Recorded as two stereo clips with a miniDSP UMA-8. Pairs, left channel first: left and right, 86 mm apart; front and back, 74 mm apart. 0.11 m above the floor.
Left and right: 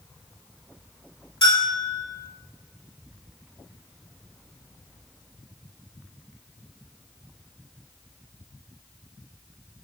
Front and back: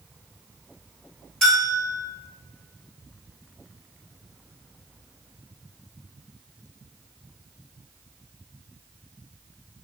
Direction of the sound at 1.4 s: 80° left.